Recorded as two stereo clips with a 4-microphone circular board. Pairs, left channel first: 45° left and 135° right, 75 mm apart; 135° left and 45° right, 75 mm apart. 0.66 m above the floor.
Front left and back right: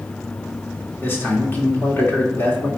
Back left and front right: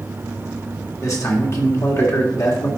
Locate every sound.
1.0 s a man speaking: 100° left, 1.9 m